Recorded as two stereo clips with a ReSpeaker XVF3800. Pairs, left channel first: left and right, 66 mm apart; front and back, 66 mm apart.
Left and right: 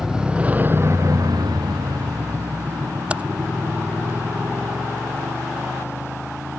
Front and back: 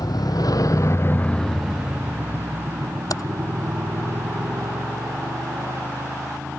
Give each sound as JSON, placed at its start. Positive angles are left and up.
{"t": 0.0, "sound": "a motorcycle", "azimuth_deg": -5}
{"t": 3.1, "sound": "typing on a keyboard", "azimuth_deg": -20}